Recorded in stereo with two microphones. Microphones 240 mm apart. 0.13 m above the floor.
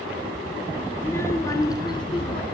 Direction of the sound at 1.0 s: 10° left (ahead or behind).